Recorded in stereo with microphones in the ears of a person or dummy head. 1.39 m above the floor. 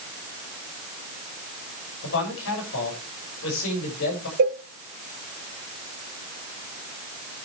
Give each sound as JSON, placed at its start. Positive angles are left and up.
{"t": 2.0, "sound": "a man speaking", "side_deg": 70, "distance_m": 7.0}
{"t": 4.4, "sound": "a cowbell", "side_deg": -50, "distance_m": 1.5}